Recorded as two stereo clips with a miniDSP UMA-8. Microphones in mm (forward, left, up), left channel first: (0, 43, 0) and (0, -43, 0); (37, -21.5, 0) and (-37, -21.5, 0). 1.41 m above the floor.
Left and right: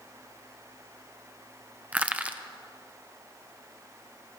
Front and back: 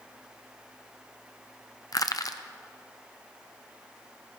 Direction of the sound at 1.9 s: 20° right.